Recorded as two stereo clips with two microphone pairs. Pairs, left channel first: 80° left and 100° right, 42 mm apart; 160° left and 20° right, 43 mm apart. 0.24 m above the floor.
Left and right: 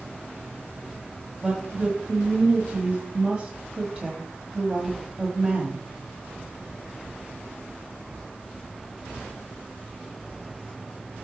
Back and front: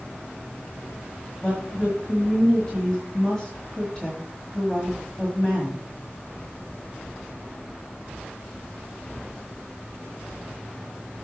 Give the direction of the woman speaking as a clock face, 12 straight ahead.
5 o'clock.